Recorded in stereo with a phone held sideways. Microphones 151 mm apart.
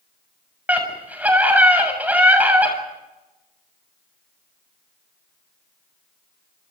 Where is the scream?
10° right (ahead or behind), 7 m.